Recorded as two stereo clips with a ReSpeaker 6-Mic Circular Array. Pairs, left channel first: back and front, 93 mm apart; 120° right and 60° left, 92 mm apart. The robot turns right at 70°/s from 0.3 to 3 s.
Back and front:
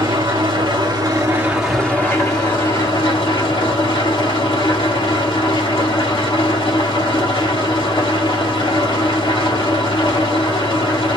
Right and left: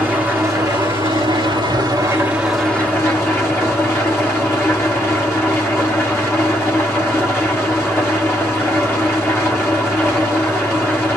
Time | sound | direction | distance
0.0 | an engine running | 10° right | 1.7 m